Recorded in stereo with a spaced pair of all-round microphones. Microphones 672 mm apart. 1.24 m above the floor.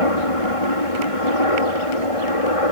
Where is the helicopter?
55° left (ahead or behind).